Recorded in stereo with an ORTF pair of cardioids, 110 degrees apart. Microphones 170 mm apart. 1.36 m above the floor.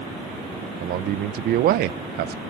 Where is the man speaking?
60° right, 0.6 m.